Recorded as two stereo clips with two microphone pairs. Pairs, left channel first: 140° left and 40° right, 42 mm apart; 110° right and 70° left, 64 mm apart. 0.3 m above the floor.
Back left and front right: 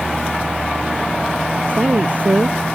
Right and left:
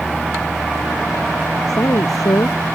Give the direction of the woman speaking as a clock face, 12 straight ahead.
3 o'clock.